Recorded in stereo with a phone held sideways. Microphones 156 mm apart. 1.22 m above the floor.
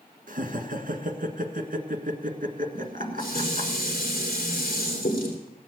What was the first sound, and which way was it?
Laughter, 55° right (ahead or behind).